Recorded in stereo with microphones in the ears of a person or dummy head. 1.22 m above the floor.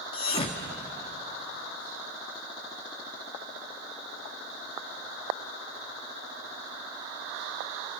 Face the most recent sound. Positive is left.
turn(degrees=30)  # may be behind; listen again after turning